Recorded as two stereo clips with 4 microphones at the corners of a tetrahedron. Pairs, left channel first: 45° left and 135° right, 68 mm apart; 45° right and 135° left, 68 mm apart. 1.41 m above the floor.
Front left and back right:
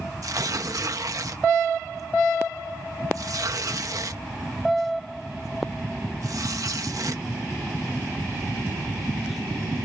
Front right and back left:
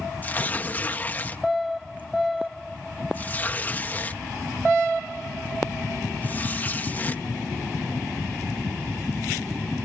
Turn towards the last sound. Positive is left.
turn(degrees=-110)